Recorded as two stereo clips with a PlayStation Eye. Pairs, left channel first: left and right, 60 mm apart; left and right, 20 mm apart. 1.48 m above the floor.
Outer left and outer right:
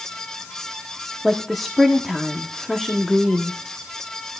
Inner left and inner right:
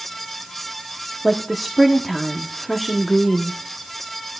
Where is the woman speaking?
Centre (ahead or behind), 0.9 m.